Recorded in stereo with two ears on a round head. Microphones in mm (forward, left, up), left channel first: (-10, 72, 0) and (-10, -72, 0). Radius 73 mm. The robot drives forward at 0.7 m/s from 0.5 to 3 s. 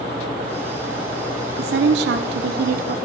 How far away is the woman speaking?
About 1.1 m.